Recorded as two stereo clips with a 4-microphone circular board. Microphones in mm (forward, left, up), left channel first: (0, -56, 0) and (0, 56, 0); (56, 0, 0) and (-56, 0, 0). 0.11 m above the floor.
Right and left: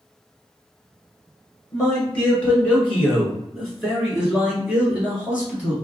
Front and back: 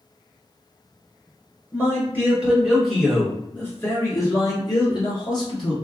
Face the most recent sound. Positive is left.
turn(degrees=20)